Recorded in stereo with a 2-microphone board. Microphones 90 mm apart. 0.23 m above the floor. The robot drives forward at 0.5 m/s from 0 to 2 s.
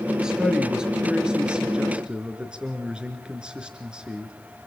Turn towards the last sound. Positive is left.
turn(degrees=-10)  # may be behind; listen again after turning